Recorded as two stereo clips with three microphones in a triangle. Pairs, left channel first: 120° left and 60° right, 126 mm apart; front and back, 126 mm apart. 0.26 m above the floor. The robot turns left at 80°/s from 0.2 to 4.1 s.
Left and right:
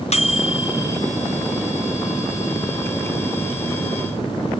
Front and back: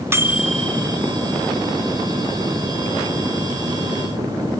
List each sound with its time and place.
0.1 s a microwave: 115° left, 2.0 m; by 1.0 s 50° left, 2.0 m